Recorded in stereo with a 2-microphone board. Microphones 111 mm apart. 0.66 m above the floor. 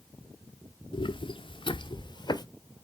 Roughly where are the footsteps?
Left.